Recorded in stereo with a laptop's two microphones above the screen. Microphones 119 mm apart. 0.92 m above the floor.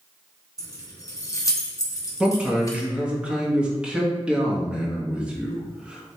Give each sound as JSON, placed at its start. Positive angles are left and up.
{"t": 0.6, "sound": "keys jangling", "side_deg": 30, "distance_m": 1.0}
{"t": 2.2, "sound": "a man speaking", "side_deg": -10, "distance_m": 1.4}